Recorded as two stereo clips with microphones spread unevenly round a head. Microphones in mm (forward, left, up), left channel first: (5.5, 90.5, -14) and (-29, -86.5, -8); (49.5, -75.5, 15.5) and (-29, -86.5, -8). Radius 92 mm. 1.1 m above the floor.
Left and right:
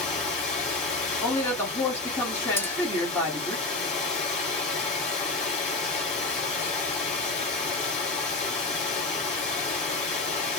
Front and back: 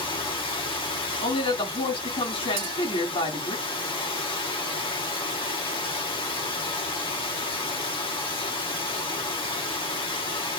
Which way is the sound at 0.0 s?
25° left.